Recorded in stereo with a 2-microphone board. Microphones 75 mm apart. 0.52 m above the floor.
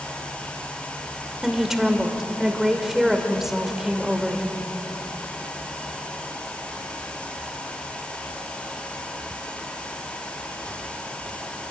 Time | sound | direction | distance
1.4 | a woman speaking | 5° right (ahead or behind) | 2 m